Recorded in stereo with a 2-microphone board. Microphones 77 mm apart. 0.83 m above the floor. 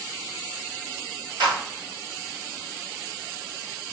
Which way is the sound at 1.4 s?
70° right (ahead or behind).